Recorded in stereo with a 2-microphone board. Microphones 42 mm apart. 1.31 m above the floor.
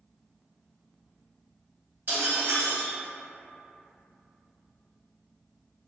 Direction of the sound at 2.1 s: 60° right (ahead or behind).